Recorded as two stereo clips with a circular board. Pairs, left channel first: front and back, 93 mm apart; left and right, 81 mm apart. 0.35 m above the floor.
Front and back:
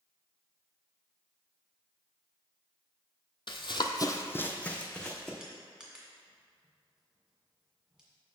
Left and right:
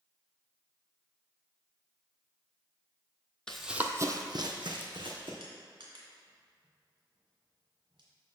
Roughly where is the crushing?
Right.